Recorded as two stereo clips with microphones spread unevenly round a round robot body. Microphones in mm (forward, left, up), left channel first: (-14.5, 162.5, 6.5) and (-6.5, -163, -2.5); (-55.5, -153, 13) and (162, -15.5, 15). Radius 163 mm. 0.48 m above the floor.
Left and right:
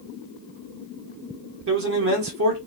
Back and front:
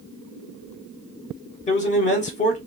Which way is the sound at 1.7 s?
100° right.